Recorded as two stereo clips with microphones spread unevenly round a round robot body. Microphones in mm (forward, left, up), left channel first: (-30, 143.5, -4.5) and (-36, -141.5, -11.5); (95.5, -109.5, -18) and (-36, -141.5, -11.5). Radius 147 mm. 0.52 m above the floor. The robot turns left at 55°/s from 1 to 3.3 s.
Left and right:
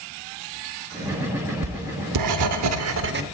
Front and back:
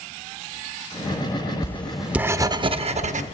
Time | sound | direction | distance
1.6 | writing | 55° right | 0.7 m